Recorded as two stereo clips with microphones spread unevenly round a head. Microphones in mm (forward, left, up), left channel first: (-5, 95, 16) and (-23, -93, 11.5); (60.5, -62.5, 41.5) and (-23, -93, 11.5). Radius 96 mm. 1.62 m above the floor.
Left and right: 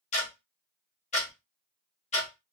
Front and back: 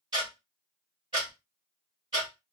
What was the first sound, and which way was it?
Ticking, 130° left.